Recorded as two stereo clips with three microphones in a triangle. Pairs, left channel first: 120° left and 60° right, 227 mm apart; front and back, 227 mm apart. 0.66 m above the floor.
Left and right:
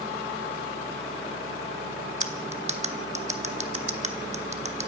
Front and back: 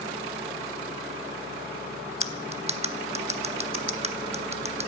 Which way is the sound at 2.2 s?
115° right.